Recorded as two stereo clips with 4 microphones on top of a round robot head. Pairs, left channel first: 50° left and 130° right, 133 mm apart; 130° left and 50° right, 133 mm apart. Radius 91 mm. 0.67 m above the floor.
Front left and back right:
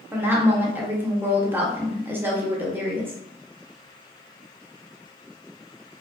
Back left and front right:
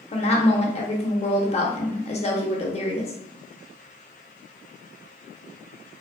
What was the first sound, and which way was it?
A woman speaking, 155° left.